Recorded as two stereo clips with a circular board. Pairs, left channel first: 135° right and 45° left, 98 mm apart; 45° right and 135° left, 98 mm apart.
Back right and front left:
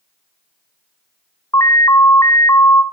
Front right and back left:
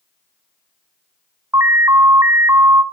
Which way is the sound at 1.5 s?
175° right.